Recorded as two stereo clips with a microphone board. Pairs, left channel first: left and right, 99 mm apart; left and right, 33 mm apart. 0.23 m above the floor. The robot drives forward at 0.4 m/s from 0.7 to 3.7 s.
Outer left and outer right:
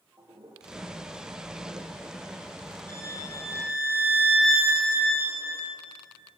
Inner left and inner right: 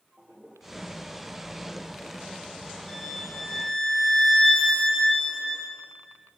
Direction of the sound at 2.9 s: 20° left (ahead or behind).